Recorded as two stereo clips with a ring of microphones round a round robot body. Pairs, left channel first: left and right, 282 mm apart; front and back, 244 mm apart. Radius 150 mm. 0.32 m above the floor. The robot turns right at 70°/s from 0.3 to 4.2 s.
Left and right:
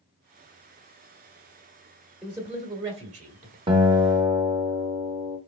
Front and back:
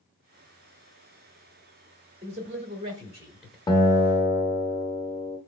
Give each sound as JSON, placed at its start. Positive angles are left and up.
{"t": 2.2, "sound": "a man speaking", "azimuth_deg": 180, "distance_m": 1.3}
{"t": 3.7, "sound": "a guitar", "azimuth_deg": -45, "distance_m": 0.9}